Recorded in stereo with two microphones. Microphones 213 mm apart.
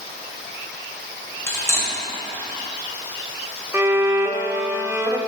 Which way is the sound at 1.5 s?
10° left (ahead or behind).